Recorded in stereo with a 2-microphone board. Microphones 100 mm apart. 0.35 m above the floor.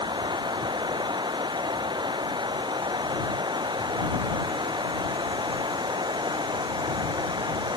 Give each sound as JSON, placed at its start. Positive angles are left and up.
{"t": 0.0, "sound": "running water", "side_deg": -50}